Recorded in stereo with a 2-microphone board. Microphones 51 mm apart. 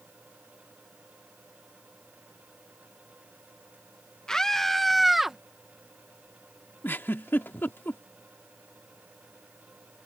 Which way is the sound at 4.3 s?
10° left (ahead or behind).